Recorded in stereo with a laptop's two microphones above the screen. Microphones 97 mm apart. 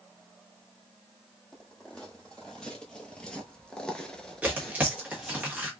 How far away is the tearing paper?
About 1.3 m.